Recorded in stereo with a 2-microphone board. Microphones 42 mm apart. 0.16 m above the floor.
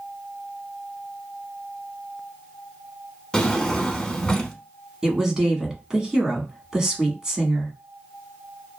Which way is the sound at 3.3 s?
15° left (ahead or behind).